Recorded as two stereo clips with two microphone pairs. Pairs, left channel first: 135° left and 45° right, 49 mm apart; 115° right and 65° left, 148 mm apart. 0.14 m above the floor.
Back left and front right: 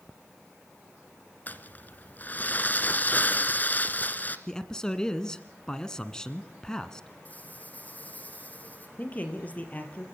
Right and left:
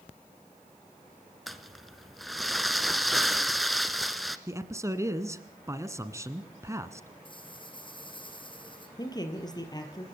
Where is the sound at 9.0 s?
175° right, 3.5 m.